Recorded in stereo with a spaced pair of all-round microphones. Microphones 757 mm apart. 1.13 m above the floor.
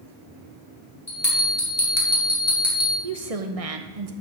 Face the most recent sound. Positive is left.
turn(degrees=-50)  # may be behind; listen again after turning